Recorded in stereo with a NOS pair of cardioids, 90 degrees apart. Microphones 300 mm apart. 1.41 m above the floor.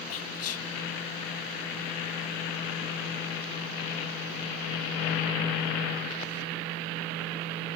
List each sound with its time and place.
0.1 s whispering: 55° left, 0.5 m